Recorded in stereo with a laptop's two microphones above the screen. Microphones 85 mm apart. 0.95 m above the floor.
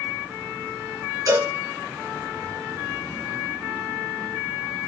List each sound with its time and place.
1.3 s a cowbell: 45° right (ahead or behind), 3.5 m